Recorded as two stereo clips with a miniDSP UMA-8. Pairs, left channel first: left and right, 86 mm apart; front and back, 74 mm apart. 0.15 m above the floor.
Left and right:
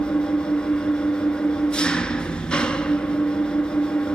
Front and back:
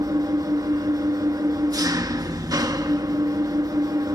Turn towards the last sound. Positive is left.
turn(degrees=165)